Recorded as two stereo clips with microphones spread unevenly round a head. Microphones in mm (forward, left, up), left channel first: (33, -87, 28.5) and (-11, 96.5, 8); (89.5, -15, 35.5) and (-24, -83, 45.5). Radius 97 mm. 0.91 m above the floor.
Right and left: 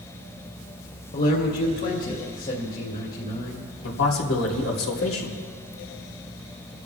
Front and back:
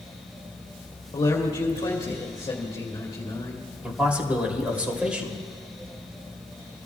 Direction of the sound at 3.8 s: 65° right.